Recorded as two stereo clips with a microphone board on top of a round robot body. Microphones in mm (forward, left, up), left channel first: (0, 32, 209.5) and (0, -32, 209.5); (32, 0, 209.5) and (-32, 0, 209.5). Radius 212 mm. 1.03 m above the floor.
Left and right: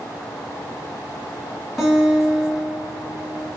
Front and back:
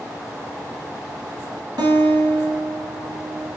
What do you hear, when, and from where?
1.8 s a guitar: straight behind, 2.0 m